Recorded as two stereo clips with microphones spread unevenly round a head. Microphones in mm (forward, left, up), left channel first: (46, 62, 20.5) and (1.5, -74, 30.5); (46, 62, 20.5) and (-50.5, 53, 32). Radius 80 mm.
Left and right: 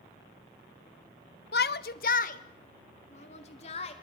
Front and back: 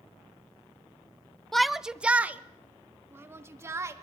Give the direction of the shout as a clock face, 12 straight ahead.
9 o'clock.